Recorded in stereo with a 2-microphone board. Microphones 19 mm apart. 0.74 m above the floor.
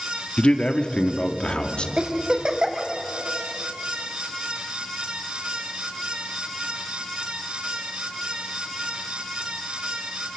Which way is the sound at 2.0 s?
35° right (ahead or behind).